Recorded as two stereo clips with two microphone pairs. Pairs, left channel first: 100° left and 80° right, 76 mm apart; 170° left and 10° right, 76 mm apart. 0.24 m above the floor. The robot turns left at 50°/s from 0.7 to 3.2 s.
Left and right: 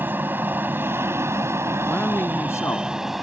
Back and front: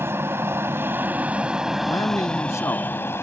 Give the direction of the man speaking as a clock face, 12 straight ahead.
6 o'clock.